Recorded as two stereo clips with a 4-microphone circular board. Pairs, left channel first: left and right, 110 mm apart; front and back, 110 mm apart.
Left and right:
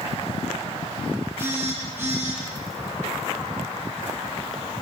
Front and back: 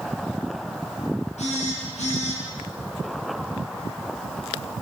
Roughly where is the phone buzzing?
Ahead.